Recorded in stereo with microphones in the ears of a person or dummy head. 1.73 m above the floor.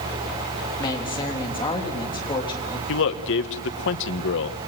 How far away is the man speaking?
About 1.7 m.